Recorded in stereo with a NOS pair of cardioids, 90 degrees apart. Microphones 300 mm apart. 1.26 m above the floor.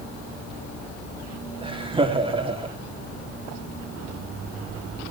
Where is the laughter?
15° right, 3 m.